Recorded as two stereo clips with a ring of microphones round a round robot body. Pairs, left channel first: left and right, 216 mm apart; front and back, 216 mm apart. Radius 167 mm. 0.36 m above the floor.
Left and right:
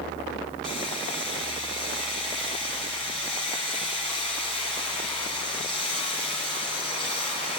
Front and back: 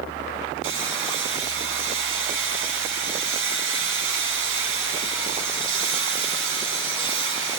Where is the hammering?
175° left, 4 m.